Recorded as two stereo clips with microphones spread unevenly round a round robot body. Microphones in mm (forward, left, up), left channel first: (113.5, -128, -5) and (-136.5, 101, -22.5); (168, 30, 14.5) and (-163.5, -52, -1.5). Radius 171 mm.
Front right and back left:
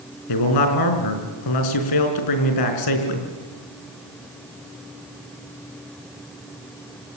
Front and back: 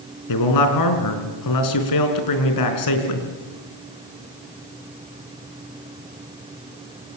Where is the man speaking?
15° right, 5 m.